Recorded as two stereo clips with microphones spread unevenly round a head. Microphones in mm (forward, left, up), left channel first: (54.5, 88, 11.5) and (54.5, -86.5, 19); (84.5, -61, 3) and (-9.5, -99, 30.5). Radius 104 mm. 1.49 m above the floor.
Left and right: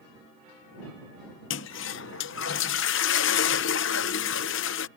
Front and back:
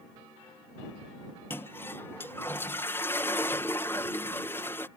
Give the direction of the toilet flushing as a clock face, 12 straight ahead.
8 o'clock.